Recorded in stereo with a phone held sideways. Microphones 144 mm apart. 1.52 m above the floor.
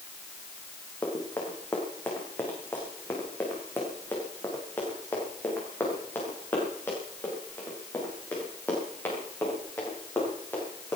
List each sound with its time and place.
1.0 s running footsteps: 15° left (ahead or behind), 5.5 m